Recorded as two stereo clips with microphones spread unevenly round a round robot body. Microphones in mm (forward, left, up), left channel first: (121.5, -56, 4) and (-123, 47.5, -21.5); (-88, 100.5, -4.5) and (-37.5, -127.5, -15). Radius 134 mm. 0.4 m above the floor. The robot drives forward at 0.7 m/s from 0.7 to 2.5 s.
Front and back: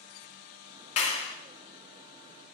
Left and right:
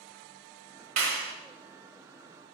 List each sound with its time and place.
1.0 s a clap: 55° right, 1.3 m; by 1.3 s 70° right, 1.2 m